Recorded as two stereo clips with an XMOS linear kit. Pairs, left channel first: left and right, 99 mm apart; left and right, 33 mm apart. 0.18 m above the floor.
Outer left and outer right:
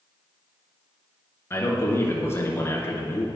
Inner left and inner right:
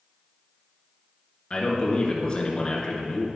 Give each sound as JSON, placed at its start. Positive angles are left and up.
{"t": 1.5, "sound": "a man speaking", "side_deg": 25, "distance_m": 2.5}